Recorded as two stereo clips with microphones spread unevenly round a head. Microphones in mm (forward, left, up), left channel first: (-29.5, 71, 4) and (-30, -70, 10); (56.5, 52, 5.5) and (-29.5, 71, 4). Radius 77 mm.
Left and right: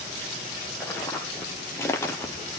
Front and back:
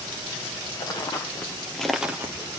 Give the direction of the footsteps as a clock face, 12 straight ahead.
12 o'clock.